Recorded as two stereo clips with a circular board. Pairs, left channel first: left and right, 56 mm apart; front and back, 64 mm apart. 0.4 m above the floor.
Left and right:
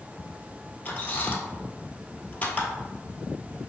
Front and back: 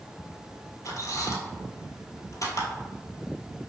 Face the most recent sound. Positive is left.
turn(degrees=30)